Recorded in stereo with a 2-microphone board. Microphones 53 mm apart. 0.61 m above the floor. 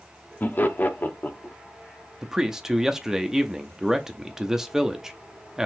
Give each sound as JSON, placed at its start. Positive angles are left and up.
{"t": 0.4, "sound": "laughter", "side_deg": 40, "distance_m": 0.8}
{"t": 2.2, "sound": "a man speaking", "side_deg": -10, "distance_m": 0.6}